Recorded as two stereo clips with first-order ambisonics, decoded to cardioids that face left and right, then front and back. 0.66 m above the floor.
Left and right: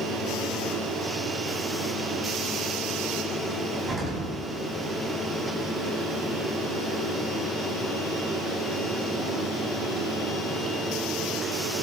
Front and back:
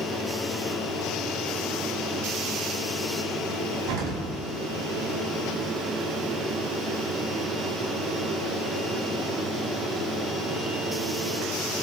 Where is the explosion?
155° right, 5 m.